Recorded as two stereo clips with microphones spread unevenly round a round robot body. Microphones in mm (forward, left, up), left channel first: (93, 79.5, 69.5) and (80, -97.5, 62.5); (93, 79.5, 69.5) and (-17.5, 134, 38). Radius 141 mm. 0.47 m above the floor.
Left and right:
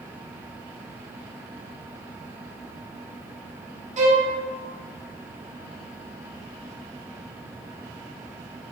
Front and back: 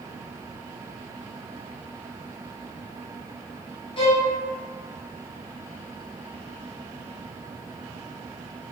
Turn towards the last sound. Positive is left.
turn(degrees=-75)